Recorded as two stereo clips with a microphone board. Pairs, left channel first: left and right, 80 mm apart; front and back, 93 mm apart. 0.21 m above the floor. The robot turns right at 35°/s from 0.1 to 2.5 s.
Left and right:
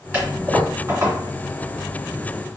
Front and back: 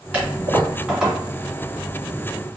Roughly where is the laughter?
I don't hear laughter.